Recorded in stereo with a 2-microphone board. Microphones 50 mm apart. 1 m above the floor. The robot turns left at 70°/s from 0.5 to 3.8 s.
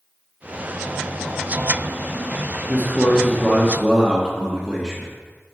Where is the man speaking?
55° left, 1.0 m; by 5.1 s 25° right, 1.0 m.